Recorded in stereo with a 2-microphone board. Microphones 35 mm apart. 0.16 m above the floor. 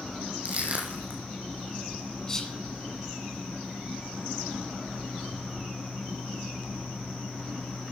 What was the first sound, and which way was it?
Crushing, 40° right (ahead or behind).